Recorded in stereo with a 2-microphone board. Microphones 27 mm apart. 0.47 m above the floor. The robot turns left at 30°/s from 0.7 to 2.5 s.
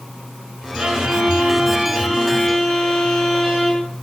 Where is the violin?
150° right, 7 m; by 3.8 s 160° left, 7 m.